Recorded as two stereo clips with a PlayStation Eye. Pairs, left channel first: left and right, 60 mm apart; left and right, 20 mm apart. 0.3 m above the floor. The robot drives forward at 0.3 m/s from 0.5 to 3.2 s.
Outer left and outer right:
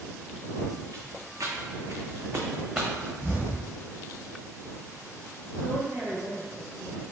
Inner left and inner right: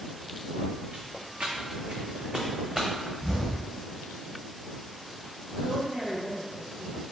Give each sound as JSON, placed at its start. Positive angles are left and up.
{"t": 0.9, "sound": "footsteps", "side_deg": -75, "distance_m": 1.0}
{"t": 3.2, "sound": "an explosion", "side_deg": -30, "distance_m": 1.7}
{"t": 5.6, "sound": "a woman speaking", "side_deg": -40, "distance_m": 1.7}